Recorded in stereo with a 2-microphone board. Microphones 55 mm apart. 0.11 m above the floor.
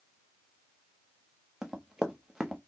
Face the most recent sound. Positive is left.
turn(degrees=-10)  # may be behind; listen again after turning